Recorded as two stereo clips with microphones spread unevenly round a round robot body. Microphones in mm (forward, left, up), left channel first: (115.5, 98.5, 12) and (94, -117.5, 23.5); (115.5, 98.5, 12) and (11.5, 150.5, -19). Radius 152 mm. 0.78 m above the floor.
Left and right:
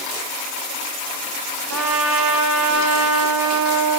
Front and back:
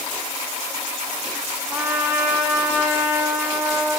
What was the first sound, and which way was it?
A trumpet, 125° right.